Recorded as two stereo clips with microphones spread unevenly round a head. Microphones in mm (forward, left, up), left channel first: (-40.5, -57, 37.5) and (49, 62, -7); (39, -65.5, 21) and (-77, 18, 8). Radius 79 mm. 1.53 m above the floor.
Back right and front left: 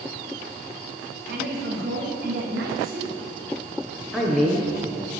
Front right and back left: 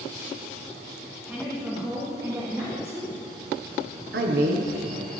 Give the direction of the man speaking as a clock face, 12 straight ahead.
7 o'clock.